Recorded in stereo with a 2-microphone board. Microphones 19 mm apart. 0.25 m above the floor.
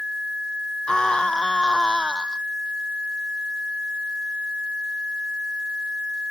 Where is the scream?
45° left (ahead or behind).